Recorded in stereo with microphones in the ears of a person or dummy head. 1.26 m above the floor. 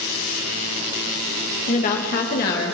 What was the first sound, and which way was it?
A woman speaking, 35° left (ahead or behind).